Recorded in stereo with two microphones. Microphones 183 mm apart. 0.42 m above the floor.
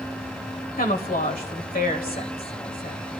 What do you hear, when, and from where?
0.8 s a woman speaking: 55° left (ahead or behind), 1.6 m